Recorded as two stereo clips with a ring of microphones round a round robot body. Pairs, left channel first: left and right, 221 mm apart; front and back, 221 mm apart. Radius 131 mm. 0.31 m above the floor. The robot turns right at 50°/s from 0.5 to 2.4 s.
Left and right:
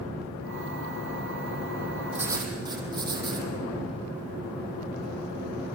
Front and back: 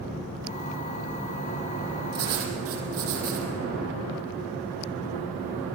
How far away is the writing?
About 3.5 m.